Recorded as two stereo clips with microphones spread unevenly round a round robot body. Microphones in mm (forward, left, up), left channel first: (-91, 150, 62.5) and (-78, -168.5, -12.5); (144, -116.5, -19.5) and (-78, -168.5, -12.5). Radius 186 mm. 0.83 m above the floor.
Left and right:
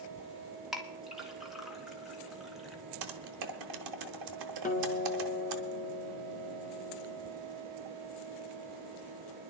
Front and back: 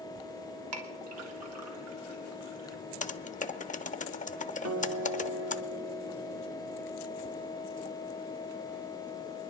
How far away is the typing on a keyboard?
About 0.8 m.